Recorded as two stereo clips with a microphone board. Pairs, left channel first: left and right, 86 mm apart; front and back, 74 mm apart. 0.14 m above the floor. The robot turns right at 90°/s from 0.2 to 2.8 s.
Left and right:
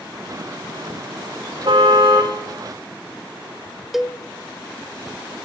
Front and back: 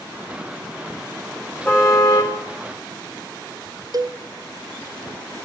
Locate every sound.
1.6 s a car horn: 70° right, 4 m; by 2.3 s 5° right, 4 m
3.9 s a cowbell: straight behind, 1.0 m